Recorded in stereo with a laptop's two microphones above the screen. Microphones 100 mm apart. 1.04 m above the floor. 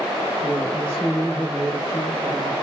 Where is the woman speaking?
40° left (ahead or behind), 1.3 m.